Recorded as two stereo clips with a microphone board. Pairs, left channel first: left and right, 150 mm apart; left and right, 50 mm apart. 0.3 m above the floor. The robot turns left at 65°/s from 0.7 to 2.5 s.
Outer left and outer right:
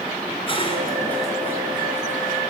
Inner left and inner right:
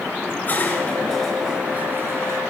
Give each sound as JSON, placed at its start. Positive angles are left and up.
{"t": 0.3, "sound": "dishes clattering", "side_deg": 35, "distance_m": 3.5}